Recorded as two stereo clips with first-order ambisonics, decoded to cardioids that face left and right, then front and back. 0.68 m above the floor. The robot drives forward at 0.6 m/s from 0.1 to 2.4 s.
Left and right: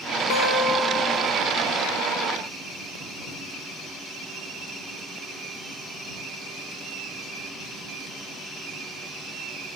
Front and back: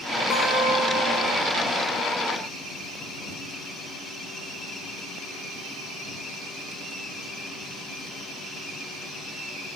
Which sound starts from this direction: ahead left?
A guitar, at 0.3 s.